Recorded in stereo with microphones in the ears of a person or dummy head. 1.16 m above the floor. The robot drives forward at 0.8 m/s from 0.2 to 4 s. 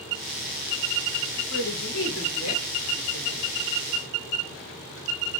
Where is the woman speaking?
70° left (ahead or behind), 3 m; by 3.4 s 75° left (ahead or behind), 3 m.